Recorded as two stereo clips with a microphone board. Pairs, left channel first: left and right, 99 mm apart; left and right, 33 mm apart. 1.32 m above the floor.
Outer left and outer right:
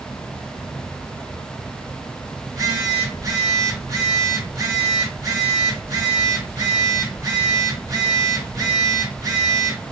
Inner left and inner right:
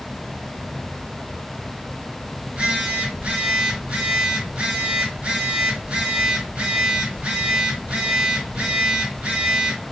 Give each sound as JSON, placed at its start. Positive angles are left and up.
{"t": 2.4, "sound": "a phone buzzing", "side_deg": -35, "distance_m": 1.5}